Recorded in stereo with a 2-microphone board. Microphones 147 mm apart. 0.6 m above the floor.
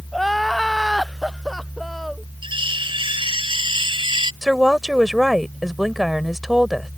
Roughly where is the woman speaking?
Centre.